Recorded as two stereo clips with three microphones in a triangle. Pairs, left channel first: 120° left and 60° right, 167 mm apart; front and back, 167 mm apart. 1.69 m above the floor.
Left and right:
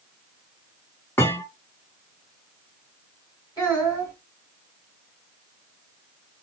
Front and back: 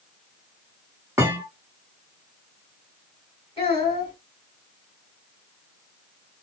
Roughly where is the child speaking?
Ahead left.